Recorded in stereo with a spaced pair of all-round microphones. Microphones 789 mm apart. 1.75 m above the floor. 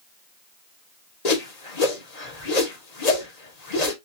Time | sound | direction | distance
1.2 | a whoosh | 55° left (ahead or behind) | 1.1 m